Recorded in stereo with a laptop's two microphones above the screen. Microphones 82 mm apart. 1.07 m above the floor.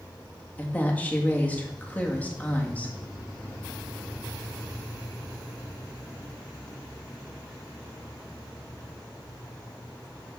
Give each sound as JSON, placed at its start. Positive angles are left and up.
{"t": 0.6, "sound": "a woman speaking", "side_deg": 15, "distance_m": 1.8}